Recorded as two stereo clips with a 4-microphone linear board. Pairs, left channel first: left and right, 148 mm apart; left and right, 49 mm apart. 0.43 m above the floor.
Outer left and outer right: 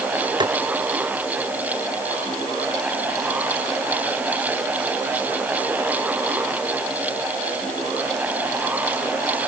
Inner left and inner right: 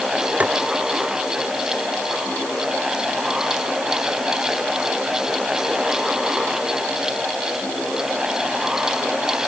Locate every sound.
0.4 s tapping: 30° right (ahead or behind)